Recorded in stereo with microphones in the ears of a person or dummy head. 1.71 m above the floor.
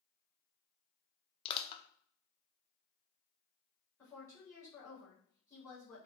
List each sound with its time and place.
1.4 s crushing: 30° left (ahead or behind), 0.8 m
4.0 s a woman speaking: 20° left (ahead or behind), 4 m